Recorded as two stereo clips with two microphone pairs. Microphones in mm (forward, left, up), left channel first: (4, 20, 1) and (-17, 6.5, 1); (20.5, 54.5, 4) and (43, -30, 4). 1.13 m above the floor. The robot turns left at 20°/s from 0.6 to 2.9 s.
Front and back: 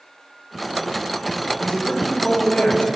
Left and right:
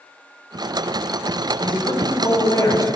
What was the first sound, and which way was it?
A man speaking, 80° left.